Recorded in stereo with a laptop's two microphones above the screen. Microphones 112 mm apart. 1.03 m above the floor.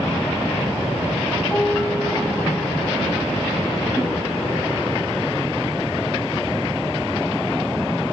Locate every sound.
1.5 s a piano: 10° left (ahead or behind), 3 m